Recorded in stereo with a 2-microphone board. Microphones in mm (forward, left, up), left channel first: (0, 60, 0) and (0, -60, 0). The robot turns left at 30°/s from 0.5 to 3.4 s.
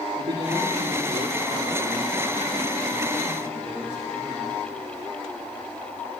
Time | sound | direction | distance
0.2 | a man speaking | 60° right | 5.5 m